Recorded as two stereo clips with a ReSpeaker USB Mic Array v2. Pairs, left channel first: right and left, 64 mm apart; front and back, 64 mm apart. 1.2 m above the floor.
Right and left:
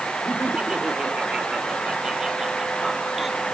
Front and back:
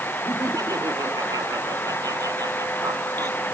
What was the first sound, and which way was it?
Laughter, 165° left.